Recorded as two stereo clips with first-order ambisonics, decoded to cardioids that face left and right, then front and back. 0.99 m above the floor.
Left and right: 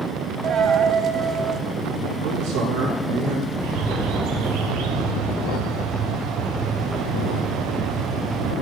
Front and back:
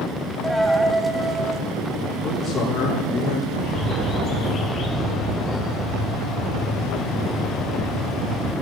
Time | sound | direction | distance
0.4 | a dropped coin | 95° right | 0.9 m
2.2 | a man speaking | 65° right | 8 m
3.5 | a bird | 65° right | 2.5 m